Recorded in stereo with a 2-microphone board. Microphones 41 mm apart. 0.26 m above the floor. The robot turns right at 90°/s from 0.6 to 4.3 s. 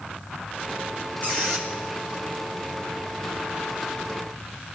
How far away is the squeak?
About 1.9 m.